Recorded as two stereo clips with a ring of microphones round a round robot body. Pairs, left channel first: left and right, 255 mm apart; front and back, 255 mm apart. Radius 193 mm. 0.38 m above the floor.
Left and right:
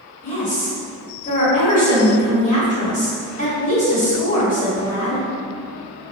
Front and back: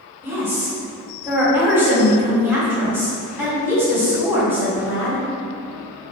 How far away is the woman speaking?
About 1.4 m.